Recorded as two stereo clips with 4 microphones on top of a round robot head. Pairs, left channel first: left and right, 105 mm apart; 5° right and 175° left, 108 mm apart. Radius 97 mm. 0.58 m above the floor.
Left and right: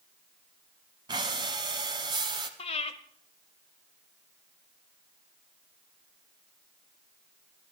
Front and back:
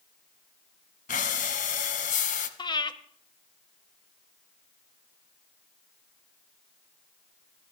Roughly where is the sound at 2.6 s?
Ahead left.